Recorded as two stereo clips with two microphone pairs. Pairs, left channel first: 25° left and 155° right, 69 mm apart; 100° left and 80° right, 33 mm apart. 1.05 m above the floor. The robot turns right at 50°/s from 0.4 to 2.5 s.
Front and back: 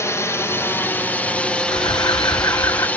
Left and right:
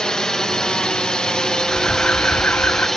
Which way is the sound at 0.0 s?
40° left.